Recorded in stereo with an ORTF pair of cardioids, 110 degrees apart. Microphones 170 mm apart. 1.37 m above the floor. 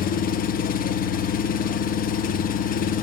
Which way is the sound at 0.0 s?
55° left.